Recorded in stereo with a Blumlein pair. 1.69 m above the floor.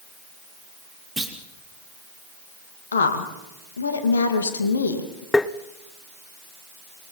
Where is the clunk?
Straight ahead, 2.5 m.